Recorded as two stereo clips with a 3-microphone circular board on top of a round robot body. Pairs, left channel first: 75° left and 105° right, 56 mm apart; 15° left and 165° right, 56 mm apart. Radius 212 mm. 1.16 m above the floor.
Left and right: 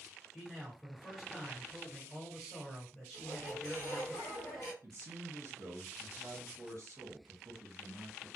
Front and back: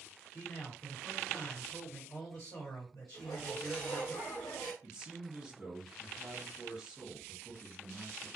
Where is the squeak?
40° left, 0.8 m.